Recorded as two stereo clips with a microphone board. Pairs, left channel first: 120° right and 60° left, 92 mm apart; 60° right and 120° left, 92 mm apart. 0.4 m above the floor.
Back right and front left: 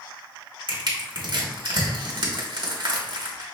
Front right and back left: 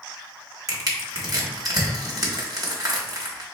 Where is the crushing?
80° left, 1.5 m.